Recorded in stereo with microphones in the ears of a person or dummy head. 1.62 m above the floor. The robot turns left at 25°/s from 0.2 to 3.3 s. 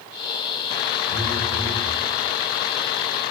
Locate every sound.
1.1 s a phone buzzing: 25° right (ahead or behind), 1.0 m; by 1.9 s 10° right (ahead or behind), 1.0 m